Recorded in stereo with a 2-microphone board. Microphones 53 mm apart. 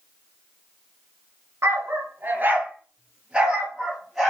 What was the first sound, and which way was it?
A dog barking, 50° right (ahead or behind).